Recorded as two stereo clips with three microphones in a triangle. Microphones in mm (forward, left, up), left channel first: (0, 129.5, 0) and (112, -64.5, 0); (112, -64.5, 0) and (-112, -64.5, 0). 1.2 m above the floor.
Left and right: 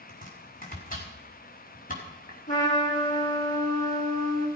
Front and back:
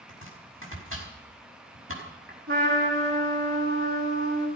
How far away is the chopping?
About 5 m.